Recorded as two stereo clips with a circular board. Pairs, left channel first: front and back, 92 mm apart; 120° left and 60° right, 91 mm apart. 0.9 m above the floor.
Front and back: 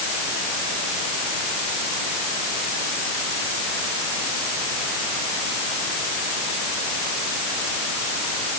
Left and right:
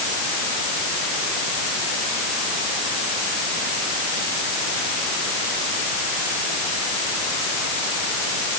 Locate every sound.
Only background noise.